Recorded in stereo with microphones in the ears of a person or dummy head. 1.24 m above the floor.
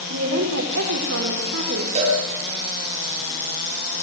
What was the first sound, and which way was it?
A woman speaking, 75° right (ahead or behind).